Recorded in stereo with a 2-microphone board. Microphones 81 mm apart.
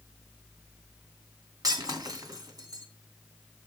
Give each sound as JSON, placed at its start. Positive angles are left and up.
{"t": 1.6, "sound": "breaking glass", "side_deg": -50, "distance_m": 2.5}